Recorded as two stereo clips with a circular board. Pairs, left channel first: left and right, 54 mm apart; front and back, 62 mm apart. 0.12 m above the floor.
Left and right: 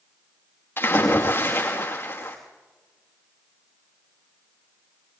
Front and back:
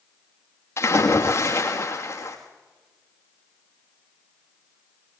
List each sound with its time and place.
0.8 s a splash: 40° left, 5.5 m